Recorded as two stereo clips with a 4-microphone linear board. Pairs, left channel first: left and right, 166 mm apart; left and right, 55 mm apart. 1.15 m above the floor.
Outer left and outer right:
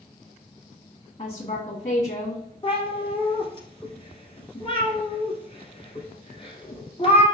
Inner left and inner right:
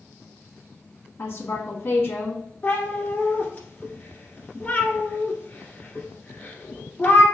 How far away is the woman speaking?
About 1.8 m.